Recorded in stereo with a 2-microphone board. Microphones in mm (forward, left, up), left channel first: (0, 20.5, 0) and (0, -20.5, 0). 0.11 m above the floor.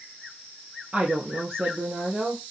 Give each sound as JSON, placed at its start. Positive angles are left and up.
{"t": 0.9, "sound": "a woman speaking", "side_deg": -35, "distance_m": 2.5}